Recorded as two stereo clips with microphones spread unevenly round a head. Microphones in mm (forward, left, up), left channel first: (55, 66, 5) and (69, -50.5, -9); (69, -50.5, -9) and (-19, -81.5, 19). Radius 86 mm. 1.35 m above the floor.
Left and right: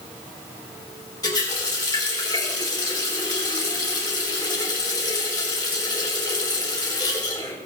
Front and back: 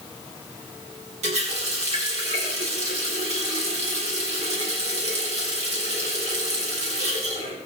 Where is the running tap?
170° left, 3 m.